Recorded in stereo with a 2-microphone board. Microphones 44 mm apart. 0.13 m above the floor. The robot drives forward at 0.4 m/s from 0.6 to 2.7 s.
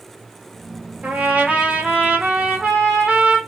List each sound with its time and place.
1.0 s a trumpet: 45° right (ahead or behind), 0.7 m; by 3.4 s 25° right (ahead or behind), 1.2 m